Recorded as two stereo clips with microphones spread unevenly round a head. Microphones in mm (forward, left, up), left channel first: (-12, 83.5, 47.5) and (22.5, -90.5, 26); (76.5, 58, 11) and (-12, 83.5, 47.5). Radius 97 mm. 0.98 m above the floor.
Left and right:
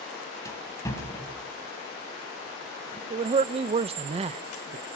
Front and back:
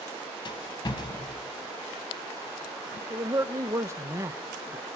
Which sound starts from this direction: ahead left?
A rattle, at 0.5 s.